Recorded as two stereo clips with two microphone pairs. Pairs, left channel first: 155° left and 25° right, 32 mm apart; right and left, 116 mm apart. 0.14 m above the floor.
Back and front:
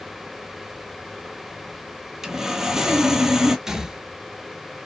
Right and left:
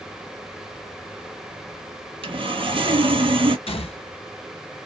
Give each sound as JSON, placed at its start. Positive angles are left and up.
{"t": 2.2, "sound": "sawing", "azimuth_deg": 55, "distance_m": 0.6}
{"t": 3.7, "sound": "a gunshot", "azimuth_deg": -95, "distance_m": 0.6}